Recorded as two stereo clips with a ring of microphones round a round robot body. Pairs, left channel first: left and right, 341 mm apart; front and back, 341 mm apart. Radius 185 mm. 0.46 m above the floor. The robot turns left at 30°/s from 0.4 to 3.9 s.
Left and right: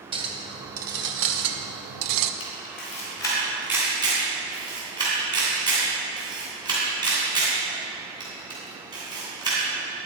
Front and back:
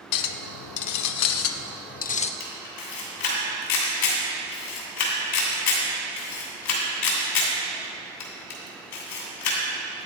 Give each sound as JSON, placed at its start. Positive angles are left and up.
{"t": 0.1, "sound": "a clink", "azimuth_deg": -15, "distance_m": 0.5}
{"t": 2.4, "sound": "a camera shutter", "azimuth_deg": 35, "distance_m": 2.5}